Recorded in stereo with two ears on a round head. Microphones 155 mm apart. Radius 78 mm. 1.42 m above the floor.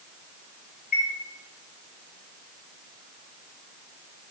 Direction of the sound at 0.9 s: 45° left (ahead or behind).